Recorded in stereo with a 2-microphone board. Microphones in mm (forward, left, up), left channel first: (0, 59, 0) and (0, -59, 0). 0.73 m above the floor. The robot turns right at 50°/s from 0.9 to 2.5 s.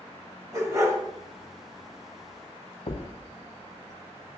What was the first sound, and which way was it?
A dog barking, 30° right (ahead or behind).